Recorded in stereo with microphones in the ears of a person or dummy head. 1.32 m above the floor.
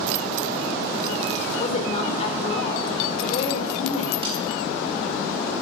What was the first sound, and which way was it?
A woman speaking, 45° left (ahead or behind).